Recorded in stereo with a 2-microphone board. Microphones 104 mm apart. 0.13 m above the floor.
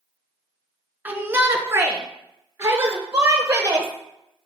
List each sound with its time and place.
1.1 s a shout: 20° right (ahead or behind), 1.4 m; by 3.9 s 30° right (ahead or behind), 3.5 m